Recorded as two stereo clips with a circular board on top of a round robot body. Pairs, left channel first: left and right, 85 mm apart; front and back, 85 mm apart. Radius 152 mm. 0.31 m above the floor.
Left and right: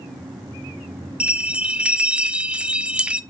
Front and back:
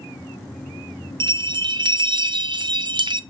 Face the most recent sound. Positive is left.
turn(degrees=-165)